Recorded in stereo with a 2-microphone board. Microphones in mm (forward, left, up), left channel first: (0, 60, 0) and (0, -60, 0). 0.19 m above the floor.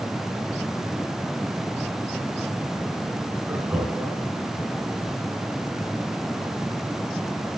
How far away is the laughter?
About 1.8 m.